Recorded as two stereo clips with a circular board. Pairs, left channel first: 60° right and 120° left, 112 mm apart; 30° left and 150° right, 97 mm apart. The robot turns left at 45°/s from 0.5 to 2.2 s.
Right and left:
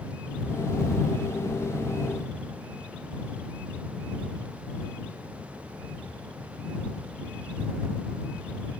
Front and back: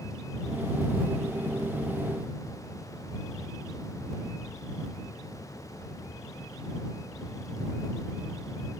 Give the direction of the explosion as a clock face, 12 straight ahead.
No explosion in this recording.